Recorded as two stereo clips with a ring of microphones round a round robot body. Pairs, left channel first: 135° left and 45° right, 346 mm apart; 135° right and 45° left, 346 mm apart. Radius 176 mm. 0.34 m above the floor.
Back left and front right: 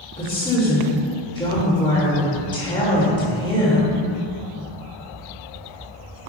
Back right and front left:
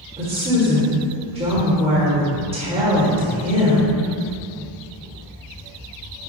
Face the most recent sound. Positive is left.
turn(degrees=85)